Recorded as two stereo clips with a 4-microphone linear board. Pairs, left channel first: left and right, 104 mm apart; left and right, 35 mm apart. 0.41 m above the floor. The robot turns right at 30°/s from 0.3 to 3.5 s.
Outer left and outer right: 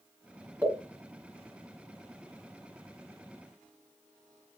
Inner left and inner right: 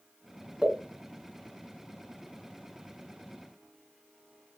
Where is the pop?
25° right (ahead or behind), 1.6 m.